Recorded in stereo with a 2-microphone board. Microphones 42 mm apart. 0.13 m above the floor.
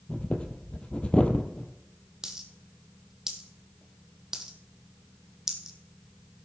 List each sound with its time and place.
0.1 s breathing: 25° left (ahead or behind), 1.3 m
2.2 s a dropped coin: 15° right (ahead or behind), 1.6 m